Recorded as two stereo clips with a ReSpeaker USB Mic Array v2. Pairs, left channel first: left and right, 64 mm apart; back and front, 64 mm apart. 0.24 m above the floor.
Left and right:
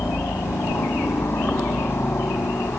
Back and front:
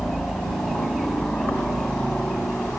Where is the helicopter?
110° left.